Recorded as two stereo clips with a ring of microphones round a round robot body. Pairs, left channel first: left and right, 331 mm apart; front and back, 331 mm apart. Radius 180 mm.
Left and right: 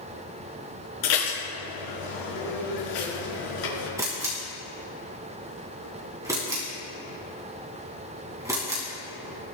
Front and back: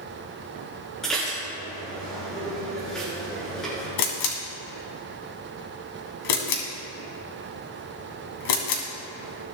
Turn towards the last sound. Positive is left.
turn(degrees=-10)